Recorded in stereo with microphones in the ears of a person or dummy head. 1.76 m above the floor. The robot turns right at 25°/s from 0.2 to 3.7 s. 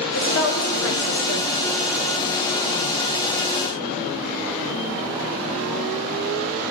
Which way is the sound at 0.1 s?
65° left.